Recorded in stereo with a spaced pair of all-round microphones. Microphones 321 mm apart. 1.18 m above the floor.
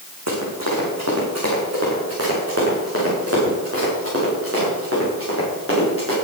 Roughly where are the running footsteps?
Right.